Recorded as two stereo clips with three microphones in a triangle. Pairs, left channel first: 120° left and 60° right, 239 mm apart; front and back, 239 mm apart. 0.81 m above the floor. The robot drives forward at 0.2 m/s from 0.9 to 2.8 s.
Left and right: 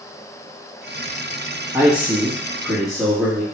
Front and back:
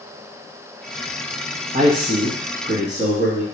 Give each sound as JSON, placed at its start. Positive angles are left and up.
{"t": 1.7, "sound": "a man speaking", "azimuth_deg": -140, "distance_m": 0.9}